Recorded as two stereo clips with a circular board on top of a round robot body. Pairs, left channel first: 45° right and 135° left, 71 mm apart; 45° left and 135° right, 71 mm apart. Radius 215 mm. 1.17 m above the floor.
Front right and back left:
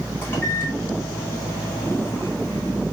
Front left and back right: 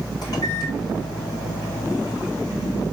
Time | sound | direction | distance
0.2 | a microwave | 15° left | 4.5 m